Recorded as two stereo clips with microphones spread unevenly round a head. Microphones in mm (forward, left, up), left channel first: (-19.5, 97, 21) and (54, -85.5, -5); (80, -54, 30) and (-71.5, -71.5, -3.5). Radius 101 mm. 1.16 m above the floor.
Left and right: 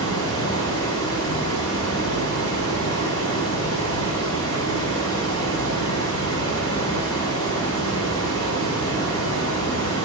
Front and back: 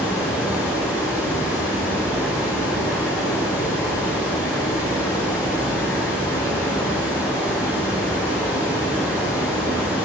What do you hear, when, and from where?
0.0 s running water: 95° left, 2.5 m